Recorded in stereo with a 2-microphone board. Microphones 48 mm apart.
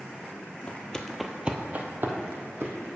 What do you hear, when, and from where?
0.7 s footsteps: 30° left (ahead or behind), 0.8 m; by 2.9 s 65° right (ahead or behind), 1.6 m